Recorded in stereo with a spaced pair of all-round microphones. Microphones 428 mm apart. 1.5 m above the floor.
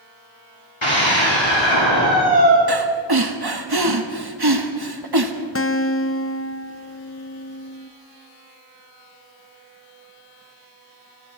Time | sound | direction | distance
0.8 | a scream | 85° left | 4 m
2.7 | breathing | 55° right (ahead or behind) | 1.6 m
5.5 | a guitar | 30° left (ahead or behind) | 0.8 m